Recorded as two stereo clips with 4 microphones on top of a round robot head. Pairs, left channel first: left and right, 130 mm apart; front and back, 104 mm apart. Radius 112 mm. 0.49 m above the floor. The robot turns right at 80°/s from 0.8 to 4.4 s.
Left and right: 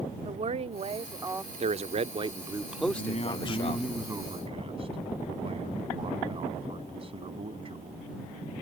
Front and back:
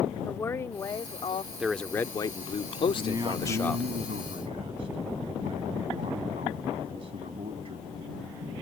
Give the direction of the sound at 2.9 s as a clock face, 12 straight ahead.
8 o'clock.